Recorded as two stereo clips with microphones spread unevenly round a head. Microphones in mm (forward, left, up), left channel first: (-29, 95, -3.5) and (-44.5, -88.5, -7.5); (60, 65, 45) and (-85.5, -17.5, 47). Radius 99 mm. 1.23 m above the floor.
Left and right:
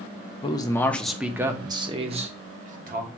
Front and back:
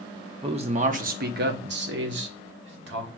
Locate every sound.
0.4 s a man speaking: 150° left, 0.8 m; by 3.1 s 135° right, 1.4 m